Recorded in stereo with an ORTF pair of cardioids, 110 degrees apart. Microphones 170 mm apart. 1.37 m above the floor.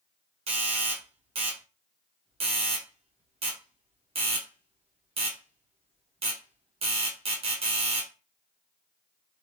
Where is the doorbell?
35° right, 1.1 m.